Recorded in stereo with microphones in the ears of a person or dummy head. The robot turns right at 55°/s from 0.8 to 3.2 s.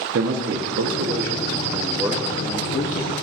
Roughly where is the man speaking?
Right.